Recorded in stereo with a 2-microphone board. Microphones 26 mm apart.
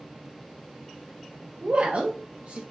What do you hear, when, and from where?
1.6 s a woman speaking: 45° right (ahead or behind), 0.5 m